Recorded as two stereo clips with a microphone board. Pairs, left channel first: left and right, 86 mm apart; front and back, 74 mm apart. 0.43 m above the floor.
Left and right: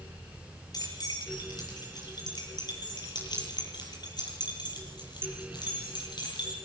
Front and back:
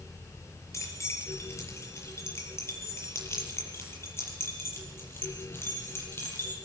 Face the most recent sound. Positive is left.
turn(degrees=60)